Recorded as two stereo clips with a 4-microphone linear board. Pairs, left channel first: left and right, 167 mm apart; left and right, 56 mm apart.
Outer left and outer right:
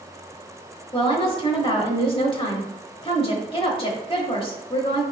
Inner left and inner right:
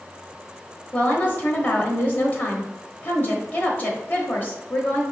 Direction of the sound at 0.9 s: 35° left (ahead or behind).